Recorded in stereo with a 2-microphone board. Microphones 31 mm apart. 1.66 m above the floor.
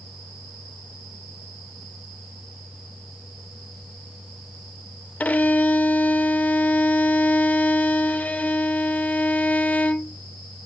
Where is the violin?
55° left (ahead or behind), 0.5 m.